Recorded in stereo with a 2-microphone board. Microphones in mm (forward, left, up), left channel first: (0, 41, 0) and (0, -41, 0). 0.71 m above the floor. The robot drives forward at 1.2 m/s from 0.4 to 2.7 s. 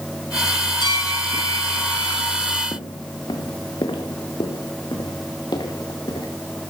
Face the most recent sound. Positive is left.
turn(degrees=65)  # may be behind; listen again after turning